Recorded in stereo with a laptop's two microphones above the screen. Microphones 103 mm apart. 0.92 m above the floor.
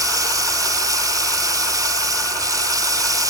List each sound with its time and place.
0.0 s running water: 35° right (ahead or behind)